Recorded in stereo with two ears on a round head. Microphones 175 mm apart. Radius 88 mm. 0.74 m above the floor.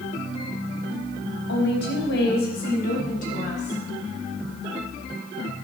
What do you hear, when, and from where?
1.5 s a woman speaking: 65° left (ahead or behind), 4.5 m; by 3.8 s 35° left (ahead or behind), 6 m